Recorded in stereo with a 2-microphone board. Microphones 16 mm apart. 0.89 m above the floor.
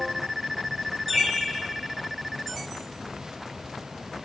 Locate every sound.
1.1 s a bird: 20° right (ahead or behind), 4 m